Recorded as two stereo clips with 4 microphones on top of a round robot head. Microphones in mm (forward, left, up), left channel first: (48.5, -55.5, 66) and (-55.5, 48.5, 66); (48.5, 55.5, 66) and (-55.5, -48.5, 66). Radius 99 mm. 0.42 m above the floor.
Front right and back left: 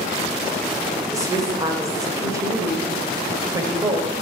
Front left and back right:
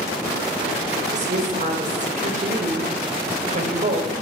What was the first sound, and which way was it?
A woman speaking, 160° right.